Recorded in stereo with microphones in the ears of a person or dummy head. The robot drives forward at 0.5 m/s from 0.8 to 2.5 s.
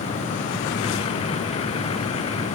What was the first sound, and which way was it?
Only background noise.